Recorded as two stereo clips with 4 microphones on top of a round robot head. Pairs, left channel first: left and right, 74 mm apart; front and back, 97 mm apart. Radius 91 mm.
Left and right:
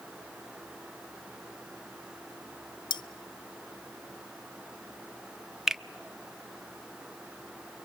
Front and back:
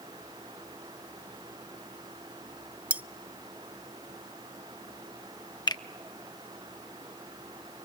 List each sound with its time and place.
2.9 s cutlery clinking: 105° left, 0.7 m
5.7 s a finger snap: 10° right, 1.0 m